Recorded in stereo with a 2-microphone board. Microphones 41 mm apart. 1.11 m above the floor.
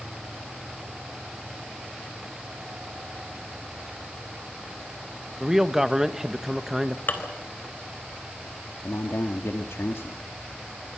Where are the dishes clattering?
50° left (ahead or behind), 3.5 m.